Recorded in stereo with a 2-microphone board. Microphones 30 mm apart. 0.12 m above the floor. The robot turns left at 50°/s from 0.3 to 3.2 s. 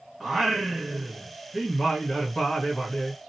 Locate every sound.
0.2 s singing: 20° right (ahead or behind), 1.3 m; by 3.3 s 20° left (ahead or behind), 1.3 m